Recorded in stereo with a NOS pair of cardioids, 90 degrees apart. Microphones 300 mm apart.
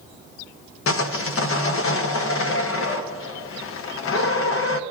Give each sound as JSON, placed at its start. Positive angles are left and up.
{"t": 0.9, "sound": "sawing", "azimuth_deg": 45, "distance_m": 0.9}